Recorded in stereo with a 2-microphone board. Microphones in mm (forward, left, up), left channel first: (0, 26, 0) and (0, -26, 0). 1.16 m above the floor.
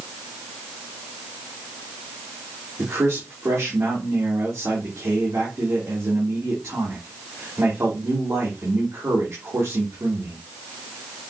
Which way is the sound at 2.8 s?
60° right (ahead or behind).